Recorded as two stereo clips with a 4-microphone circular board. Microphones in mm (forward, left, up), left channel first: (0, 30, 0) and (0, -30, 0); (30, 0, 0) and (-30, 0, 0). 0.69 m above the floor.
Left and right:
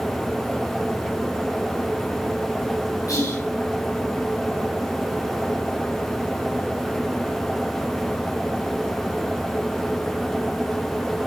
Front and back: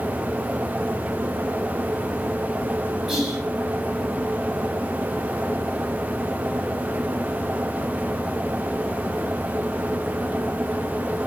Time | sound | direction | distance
3.1 | whispering | 90° left | 4 m